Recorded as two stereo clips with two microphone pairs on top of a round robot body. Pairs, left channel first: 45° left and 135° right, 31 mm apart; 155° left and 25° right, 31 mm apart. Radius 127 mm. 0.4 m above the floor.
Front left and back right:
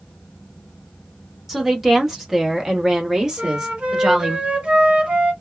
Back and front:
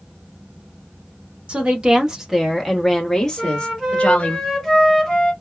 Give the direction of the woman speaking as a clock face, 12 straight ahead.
2 o'clock.